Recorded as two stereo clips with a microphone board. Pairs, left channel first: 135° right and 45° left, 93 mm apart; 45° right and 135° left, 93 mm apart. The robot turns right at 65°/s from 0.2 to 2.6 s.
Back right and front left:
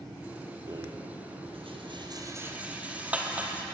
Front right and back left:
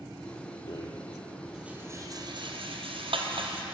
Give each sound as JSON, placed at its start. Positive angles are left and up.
{"t": 0.7, "sound": "a rattle", "azimuth_deg": -5, "distance_m": 1.4}